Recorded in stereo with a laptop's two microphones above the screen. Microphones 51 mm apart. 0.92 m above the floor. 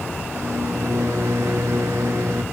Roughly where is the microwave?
Right.